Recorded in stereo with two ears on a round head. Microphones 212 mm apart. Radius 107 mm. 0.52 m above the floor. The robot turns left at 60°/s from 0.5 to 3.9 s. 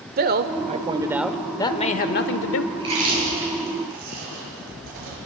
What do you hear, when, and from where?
0.2 s a man speaking: 130° right, 1.3 m; by 2.6 s 100° left, 1.3 m
2.7 s chewing: 15° right (ahead or behind), 6.5 m; by 5.2 s 85° right, 6.5 m